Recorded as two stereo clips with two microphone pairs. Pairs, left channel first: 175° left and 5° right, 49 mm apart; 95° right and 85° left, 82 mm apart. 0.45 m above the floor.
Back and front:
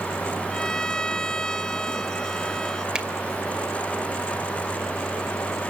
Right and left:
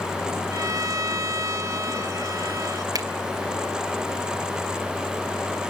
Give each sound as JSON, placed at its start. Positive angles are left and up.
{"t": 0.5, "sound": "a violin", "azimuth_deg": 105, "distance_m": 0.8}
{"t": 3.0, "sound": "a finger snap", "azimuth_deg": 65, "distance_m": 2.0}